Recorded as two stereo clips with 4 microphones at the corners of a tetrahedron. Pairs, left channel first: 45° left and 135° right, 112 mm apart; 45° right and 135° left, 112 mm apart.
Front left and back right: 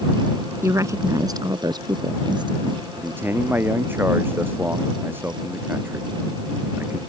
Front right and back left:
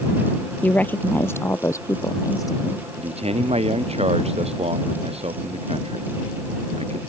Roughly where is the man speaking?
Behind left.